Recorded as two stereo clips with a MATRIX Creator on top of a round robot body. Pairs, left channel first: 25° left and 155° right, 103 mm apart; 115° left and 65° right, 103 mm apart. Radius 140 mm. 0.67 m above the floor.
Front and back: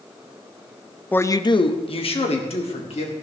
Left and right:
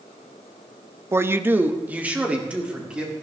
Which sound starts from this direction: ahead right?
A man speaking, at 1.1 s.